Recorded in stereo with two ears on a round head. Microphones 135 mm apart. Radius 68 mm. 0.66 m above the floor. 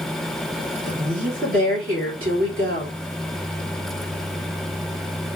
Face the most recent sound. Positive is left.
turn(degrees=-55)  # may be behind; listen again after turning